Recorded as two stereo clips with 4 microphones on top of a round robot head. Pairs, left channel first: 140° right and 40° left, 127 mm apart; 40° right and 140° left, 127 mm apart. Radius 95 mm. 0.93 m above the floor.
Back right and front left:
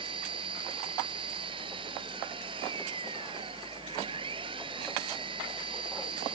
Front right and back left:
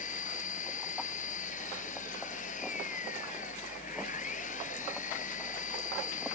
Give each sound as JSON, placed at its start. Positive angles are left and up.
{"t": 0.0, "sound": "an engine running", "azimuth_deg": -15}